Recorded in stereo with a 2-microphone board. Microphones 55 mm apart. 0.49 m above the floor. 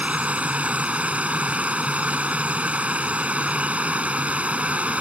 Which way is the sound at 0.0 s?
25° right (ahead or behind).